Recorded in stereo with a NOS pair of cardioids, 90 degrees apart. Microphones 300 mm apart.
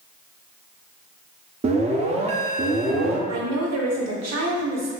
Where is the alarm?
25° right, 0.5 m.